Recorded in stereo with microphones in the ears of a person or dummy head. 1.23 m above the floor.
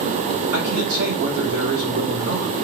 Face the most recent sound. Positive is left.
turn(degrees=-85)